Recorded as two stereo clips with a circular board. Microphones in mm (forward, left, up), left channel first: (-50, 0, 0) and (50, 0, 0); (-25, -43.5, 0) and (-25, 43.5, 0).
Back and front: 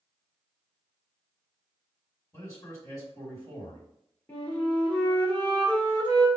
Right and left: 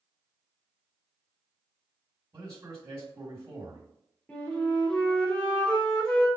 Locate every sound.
2.3 s a man speaking: 130° left, 1.9 m
4.3 s a flute: 145° right, 1.4 m